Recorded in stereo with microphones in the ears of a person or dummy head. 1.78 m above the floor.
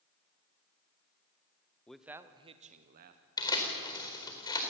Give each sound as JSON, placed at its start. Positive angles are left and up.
{"t": 1.9, "sound": "a man speaking", "side_deg": 5, "distance_m": 1.1}
{"t": 3.4, "sound": "tearing paper", "side_deg": 20, "distance_m": 4.5}